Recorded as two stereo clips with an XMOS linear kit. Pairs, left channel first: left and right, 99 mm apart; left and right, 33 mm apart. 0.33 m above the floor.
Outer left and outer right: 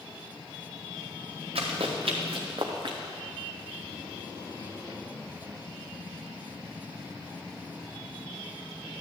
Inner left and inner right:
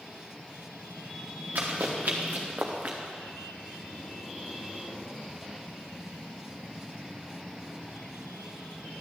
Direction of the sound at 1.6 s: 75° right (ahead or behind).